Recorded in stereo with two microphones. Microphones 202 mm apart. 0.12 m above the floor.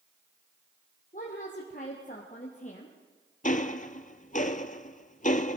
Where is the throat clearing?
No throat clearing in this recording.